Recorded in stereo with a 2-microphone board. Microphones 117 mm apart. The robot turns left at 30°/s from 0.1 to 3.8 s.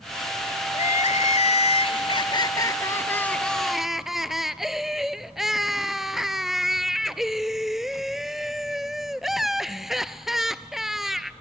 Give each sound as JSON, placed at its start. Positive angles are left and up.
{"t": 0.7, "sound": "crying", "azimuth_deg": 90, "distance_m": 0.5}